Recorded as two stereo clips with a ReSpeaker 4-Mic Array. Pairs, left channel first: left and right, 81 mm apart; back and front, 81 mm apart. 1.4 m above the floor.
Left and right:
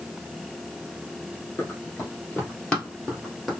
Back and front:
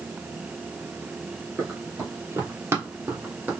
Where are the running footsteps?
35° left, 2 m; by 3.5 s 5° left, 1.5 m.